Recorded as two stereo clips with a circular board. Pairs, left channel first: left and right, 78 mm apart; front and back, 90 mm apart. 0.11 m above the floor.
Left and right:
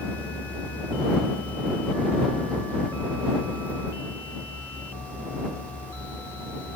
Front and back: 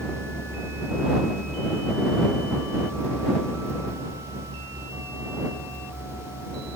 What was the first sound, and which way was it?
Only background noise.